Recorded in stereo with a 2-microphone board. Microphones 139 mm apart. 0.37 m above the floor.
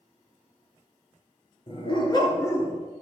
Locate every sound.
1.7 s a dog barking: 40° left (ahead or behind), 3 m; by 2.8 s 15° left (ahead or behind), 2.0 m